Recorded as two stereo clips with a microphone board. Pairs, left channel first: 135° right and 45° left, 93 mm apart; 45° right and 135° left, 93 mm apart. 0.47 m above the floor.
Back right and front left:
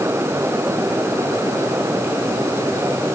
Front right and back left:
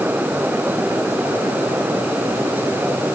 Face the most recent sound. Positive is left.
No sound to turn to.